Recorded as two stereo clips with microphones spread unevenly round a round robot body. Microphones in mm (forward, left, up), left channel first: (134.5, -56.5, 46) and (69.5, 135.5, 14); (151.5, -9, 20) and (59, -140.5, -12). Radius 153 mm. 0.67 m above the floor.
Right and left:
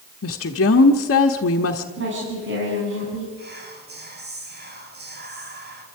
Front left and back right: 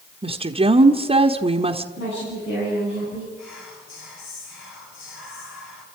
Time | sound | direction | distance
0.2 | a woman speaking | 85° right | 1.1 m
2.0 | a woman speaking | 90° left | 6.5 m
3.4 | whispering | 75° left | 5.5 m